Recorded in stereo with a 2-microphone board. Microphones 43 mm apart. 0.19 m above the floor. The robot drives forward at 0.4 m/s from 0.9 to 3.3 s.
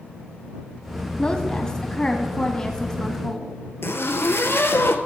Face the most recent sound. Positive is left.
turn(degrees=70)  # may be behind; listen again after turning